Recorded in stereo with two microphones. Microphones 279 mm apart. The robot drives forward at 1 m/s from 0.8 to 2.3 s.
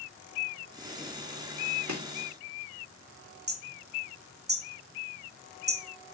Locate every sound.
1.9 s chopping: 75° right (ahead or behind), 2 m; by 2.0 s 70° right (ahead or behind), 2 m
3.5 s hammering: 35° right (ahead or behind), 1.0 m